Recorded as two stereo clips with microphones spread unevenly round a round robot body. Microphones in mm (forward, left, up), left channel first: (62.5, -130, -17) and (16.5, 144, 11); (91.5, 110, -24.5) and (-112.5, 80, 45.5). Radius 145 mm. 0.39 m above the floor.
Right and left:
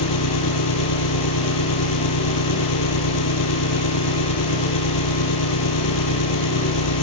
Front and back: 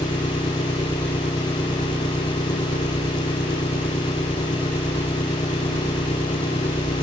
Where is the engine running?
70° right.